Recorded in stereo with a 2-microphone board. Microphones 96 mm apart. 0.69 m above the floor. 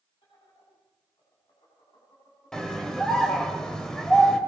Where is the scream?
5° left (ahead or behind), 2.5 m.